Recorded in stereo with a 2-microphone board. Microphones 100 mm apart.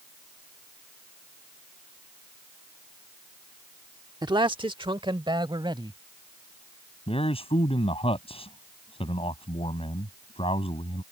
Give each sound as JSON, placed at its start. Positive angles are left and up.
{"t": 4.2, "sound": "a man speaking", "side_deg": -45}
{"t": 7.1, "sound": "a man speaking", "side_deg": 70}